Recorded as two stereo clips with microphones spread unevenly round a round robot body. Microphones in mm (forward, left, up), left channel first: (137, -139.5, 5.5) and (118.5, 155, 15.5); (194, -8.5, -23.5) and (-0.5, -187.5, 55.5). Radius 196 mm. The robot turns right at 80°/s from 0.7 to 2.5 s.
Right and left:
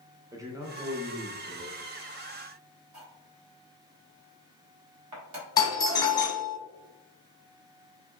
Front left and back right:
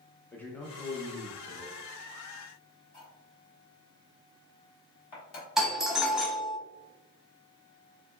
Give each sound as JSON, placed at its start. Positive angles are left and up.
{"t": 0.3, "sound": "a man speaking", "azimuth_deg": 25, "distance_m": 0.7}
{"t": 2.9, "sound": "cutlery clinking", "azimuth_deg": 65, "distance_m": 1.3}
{"t": 5.6, "sound": "a doorbell", "azimuth_deg": -20, "distance_m": 1.0}